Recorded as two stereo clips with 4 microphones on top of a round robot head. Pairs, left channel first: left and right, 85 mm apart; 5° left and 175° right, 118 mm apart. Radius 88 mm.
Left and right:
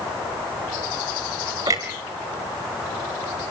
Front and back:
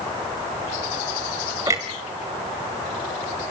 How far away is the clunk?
About 1.6 m.